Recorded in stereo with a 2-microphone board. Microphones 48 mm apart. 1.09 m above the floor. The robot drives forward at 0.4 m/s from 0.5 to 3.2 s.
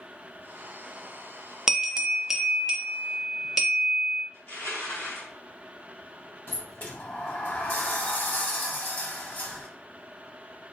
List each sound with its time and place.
1.7 s a bell: 10° right (ahead or behind), 0.5 m; by 4.2 s 5° right (ahead or behind), 1.1 m
4.3 s crushing: 85° left, 2.0 m
6.5 s a sliding door: 35° left (ahead or behind), 0.7 m